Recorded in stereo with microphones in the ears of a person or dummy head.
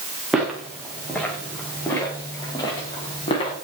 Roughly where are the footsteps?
Centre.